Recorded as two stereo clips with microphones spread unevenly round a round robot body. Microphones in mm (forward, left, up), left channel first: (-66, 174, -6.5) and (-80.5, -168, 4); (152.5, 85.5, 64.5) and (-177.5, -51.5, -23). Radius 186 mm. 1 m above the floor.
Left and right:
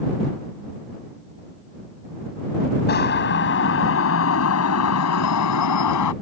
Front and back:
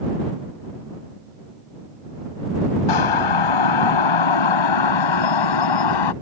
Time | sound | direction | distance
2.9 | a siren | 20° left | ?